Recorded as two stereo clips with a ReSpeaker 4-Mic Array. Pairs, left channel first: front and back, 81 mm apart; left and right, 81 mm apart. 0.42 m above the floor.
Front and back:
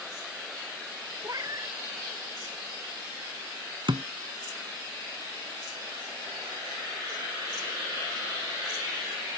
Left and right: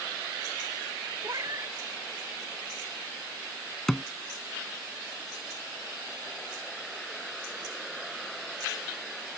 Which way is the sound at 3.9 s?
175° left.